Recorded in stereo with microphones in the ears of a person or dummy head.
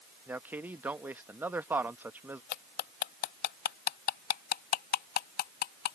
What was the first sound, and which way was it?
A man speaking, 15° right (ahead or behind).